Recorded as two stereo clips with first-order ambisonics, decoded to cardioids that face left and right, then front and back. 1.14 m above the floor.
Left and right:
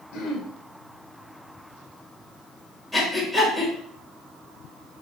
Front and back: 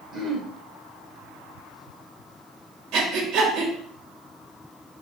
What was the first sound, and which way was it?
Throat clearing, 105° left.